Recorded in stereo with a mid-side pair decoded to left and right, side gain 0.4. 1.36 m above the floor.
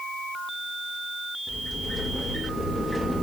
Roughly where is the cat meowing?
I don't hear a cat meowing.